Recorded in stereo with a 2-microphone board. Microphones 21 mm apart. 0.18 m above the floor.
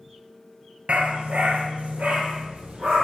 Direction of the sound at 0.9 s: 75° right (ahead or behind).